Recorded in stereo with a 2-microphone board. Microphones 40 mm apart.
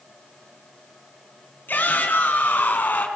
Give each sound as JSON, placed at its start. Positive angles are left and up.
{"t": 1.7, "sound": "a shout", "side_deg": 50, "distance_m": 4.5}